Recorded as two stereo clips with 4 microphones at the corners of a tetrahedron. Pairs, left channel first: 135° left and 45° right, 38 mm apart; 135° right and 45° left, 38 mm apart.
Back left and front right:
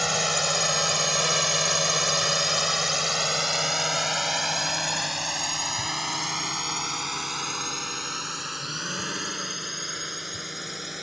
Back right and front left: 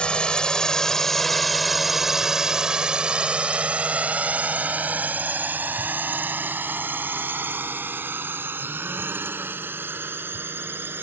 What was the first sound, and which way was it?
A drone, 130° right.